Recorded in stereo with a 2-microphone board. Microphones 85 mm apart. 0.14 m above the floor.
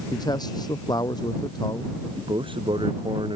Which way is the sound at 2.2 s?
85° right.